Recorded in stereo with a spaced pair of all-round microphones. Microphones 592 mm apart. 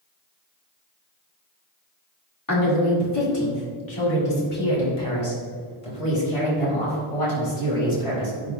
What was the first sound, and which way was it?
A woman speaking, 35° left (ahead or behind).